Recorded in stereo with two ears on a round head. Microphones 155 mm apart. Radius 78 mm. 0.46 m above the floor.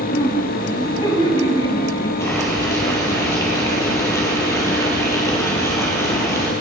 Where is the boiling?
15° left (ahead or behind), 2.5 m.